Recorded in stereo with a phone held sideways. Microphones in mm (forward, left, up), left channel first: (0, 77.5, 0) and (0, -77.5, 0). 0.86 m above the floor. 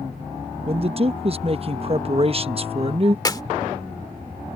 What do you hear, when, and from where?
0.7 s a man speaking: 40° right (ahead or behind)
3.2 s a clap: 25° left (ahead or behind)